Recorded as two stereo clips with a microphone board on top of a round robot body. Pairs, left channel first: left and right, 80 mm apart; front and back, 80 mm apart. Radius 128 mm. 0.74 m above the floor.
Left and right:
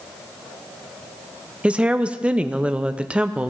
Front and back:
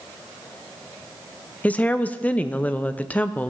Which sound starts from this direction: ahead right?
A woman speaking, at 1.6 s.